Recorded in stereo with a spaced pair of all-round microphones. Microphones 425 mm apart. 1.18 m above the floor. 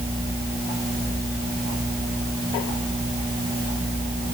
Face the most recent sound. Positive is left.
No sound to turn to.